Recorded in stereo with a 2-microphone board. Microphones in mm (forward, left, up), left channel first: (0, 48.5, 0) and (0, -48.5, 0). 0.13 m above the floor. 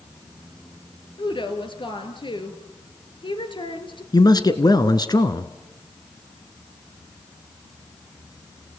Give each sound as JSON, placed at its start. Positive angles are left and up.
{"t": 1.2, "sound": "a woman speaking", "side_deg": 55, "distance_m": 3.0}
{"t": 4.1, "sound": "a man speaking", "side_deg": 40, "distance_m": 1.5}